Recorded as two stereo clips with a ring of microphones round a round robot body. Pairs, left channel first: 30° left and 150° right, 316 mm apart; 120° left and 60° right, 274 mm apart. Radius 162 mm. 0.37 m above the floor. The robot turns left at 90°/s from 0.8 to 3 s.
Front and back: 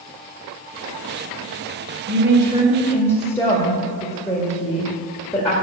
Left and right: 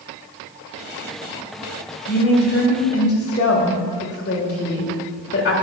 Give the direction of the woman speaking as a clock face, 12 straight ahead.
6 o'clock.